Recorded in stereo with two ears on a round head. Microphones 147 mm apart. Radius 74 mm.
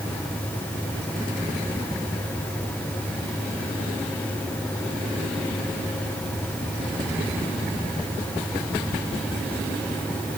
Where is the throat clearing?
No throat clearing in this recording.